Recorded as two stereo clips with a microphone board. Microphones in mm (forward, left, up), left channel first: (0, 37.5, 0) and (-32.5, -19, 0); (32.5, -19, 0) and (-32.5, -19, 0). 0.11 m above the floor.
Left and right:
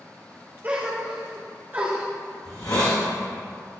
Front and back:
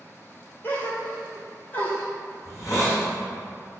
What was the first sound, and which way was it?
A gasp, 60° right.